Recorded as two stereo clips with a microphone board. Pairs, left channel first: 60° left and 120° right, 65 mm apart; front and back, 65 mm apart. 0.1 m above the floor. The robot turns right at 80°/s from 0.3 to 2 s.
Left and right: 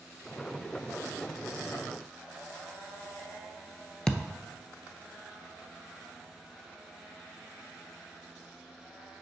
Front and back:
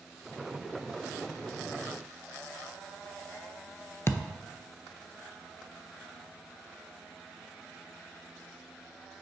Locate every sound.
4.1 s a thud: 15° right, 0.5 m